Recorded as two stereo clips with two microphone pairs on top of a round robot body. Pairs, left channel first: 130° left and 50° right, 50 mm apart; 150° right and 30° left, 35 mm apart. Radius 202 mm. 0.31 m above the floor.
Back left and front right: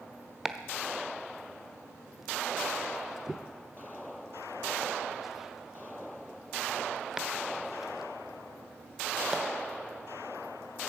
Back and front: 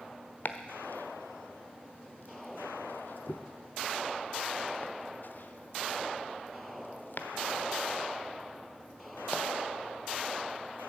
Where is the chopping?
130° right, 1.3 m.